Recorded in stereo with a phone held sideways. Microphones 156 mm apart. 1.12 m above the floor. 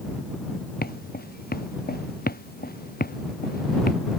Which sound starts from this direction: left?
Footsteps, at 0.8 s.